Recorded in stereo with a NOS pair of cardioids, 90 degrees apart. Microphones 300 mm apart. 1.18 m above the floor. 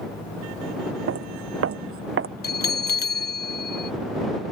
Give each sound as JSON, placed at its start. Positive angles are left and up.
{"t": 1.1, "sound": "footsteps", "azimuth_deg": -55}
{"t": 2.4, "sound": "a bell", "azimuth_deg": 35}